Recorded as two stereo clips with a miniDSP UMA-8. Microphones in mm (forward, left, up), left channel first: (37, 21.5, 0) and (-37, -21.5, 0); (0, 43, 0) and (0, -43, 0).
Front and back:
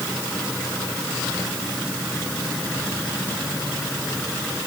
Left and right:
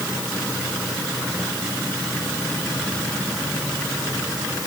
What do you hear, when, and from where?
Only background noise.